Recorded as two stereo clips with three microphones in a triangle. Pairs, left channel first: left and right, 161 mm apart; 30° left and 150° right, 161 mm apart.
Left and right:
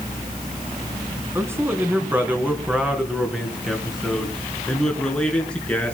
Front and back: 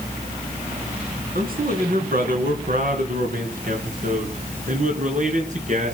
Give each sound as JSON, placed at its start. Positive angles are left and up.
{"t": 1.4, "sound": "a man speaking", "azimuth_deg": -165, "distance_m": 3.5}